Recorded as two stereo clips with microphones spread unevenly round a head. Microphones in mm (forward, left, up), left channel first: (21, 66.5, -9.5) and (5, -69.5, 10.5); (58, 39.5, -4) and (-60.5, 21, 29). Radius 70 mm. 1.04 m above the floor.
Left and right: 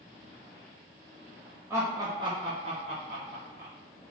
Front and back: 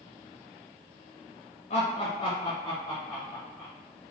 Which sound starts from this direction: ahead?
Laughter, at 1.7 s.